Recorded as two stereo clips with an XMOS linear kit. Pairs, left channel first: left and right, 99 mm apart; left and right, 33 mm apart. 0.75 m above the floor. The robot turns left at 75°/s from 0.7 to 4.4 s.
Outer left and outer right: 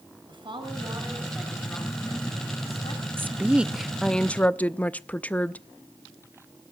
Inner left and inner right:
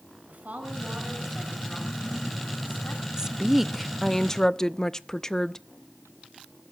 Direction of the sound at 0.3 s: 125° right.